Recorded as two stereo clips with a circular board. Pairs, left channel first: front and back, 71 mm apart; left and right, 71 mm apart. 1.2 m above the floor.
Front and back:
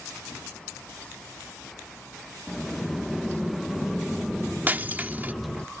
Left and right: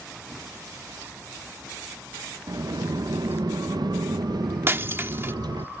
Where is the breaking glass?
130° right.